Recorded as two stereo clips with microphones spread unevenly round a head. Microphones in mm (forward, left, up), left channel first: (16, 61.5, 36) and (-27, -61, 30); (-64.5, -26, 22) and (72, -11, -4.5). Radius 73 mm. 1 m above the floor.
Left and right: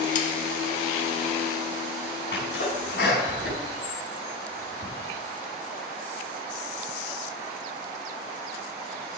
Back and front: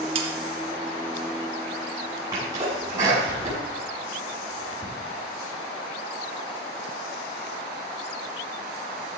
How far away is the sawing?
About 1.7 m.